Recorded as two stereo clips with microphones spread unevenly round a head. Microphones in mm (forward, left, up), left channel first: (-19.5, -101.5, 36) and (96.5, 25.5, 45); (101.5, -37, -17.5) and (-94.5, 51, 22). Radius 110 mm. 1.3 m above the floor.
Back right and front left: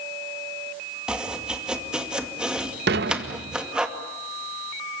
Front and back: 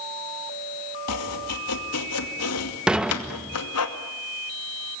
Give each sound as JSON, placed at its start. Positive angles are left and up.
{"t": 1.1, "sound": "chopping", "azimuth_deg": -40, "distance_m": 2.5}
{"t": 2.9, "sound": "dishes clattering", "azimuth_deg": 75, "distance_m": 0.7}